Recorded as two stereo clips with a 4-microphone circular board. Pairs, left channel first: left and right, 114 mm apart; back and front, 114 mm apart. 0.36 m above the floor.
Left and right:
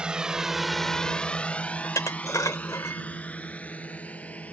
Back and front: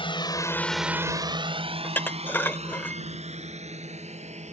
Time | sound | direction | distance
0.0 | a drone | 170° right | ?
1.8 | dishes clattering | 120° left | ?